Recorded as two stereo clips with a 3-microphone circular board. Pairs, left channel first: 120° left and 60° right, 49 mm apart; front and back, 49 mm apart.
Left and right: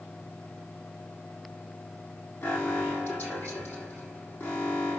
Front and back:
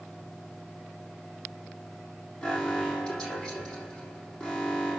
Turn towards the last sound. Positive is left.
turn(degrees=75)